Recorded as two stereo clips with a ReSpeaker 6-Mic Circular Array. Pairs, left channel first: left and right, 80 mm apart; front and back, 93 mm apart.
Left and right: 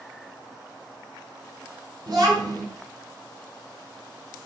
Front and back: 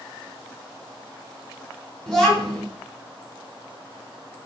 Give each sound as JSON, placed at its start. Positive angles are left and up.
{"t": 2.1, "sound": "a child speaking", "azimuth_deg": -85, "distance_m": 1.8}